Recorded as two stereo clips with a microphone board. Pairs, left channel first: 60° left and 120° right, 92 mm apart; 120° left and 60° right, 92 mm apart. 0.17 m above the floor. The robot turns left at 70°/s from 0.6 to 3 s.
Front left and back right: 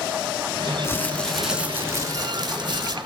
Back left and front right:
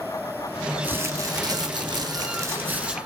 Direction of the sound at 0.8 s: 10° left.